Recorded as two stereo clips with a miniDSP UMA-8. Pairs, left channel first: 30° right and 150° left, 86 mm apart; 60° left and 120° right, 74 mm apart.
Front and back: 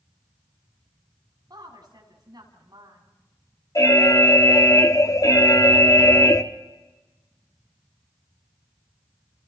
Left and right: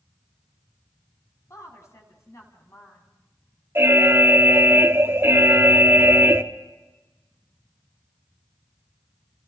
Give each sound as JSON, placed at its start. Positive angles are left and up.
{"t": 1.5, "sound": "a woman speaking", "azimuth_deg": 110, "distance_m": 5.5}
{"t": 3.8, "sound": "an alarm", "azimuth_deg": -70, "distance_m": 1.1}